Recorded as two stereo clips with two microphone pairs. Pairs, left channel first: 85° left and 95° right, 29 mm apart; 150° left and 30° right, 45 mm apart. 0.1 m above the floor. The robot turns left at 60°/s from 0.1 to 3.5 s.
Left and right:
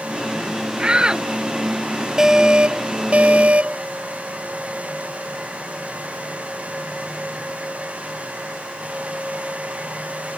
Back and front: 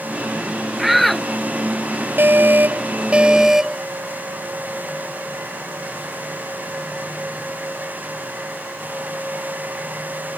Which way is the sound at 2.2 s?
30° right.